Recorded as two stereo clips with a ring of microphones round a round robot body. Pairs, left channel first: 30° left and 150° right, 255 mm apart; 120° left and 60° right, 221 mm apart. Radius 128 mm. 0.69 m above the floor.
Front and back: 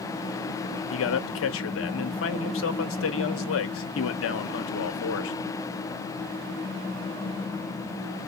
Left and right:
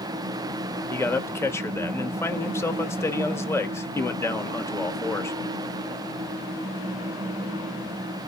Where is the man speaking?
45° left, 1.0 m.